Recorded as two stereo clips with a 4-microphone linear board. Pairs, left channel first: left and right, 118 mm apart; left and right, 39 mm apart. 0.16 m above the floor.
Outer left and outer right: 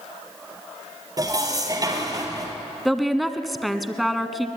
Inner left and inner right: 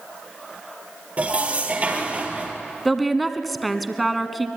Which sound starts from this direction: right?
Dishes clattering, at 1.2 s.